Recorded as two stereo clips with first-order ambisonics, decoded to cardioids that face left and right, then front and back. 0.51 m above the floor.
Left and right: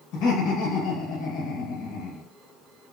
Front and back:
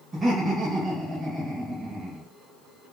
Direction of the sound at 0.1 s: 110° left.